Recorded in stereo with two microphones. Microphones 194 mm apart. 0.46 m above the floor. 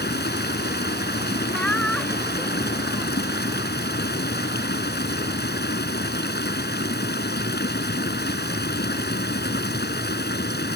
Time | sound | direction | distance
0.0 | running water | 60° left (ahead or behind) | ?
1.5 | laughter | 5° left (ahead or behind) | ?